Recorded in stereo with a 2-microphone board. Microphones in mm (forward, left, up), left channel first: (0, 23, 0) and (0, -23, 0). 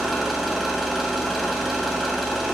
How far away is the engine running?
About 1.9 m.